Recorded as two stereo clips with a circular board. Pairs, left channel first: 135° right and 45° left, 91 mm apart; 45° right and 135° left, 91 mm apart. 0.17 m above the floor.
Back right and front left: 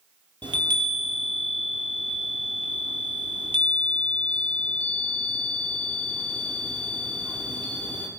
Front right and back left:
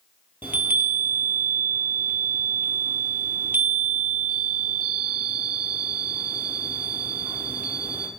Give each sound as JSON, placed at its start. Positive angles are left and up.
{"t": 0.4, "sound": "a chime", "azimuth_deg": 70, "distance_m": 1.3}